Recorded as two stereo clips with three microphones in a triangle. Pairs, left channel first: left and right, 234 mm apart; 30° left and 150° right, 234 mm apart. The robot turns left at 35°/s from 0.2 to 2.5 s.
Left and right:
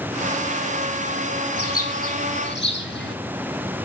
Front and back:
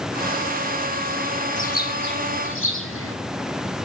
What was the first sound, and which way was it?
A bird, 85° left.